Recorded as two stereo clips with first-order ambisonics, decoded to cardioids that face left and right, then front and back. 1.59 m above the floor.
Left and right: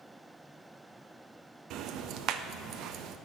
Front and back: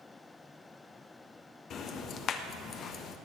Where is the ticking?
50° right, 1.1 m.